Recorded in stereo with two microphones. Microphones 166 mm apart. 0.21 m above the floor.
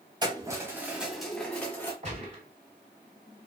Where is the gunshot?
40° right (ahead or behind), 2 m.